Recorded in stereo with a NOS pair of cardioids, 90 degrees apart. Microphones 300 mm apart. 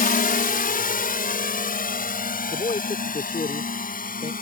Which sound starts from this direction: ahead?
A man speaking, at 2.5 s.